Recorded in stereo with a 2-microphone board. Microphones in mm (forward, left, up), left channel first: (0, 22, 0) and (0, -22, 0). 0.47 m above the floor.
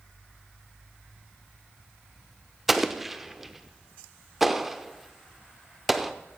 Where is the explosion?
5° right (ahead or behind), 0.7 m.